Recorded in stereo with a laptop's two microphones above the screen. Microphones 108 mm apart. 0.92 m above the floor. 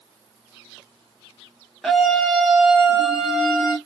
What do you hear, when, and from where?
1.8 s a scream: 5° left (ahead or behind), 0.5 m